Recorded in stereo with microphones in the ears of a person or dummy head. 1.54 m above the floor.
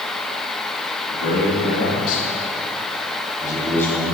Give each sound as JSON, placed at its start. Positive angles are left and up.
{"t": 1.1, "sound": "a man speaking", "side_deg": 75, "distance_m": 3.0}